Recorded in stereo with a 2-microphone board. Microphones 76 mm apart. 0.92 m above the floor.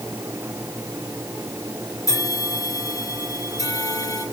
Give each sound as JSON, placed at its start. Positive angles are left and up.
{"t": 2.1, "sound": "a bell", "side_deg": 45, "distance_m": 5.5}